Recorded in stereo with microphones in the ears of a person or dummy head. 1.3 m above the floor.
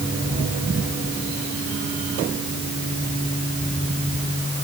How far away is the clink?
I don't hear a clink.